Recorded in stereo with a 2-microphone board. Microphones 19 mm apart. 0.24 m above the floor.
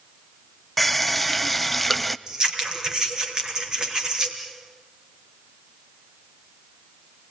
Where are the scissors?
40° right (ahead or behind), 4 m.